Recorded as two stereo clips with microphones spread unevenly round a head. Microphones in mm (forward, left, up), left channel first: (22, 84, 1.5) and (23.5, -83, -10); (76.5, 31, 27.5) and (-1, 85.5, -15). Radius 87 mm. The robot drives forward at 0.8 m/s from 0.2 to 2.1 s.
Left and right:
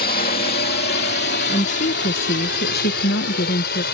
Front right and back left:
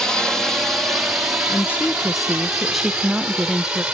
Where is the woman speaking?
35° left; by 3.8 s 75° left.